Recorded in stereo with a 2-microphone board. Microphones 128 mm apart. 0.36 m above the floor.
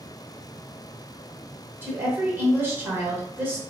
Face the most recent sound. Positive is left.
turn(degrees=-15)  # may be behind; listen again after turning